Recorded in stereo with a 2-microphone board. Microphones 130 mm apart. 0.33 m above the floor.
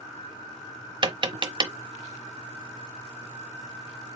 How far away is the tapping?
About 0.6 m.